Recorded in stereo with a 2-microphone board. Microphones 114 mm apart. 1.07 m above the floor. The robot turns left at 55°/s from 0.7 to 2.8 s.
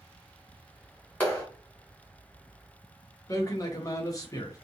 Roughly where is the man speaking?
Left.